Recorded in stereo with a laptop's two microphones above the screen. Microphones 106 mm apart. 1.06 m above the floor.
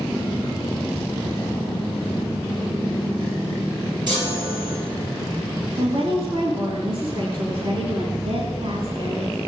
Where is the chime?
45° right (ahead or behind), 8 m.